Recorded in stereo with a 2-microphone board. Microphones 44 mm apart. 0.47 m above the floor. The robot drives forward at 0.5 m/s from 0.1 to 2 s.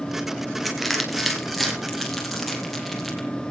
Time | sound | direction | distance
0.7 | crushing | 5° left (ahead or behind) | 3 m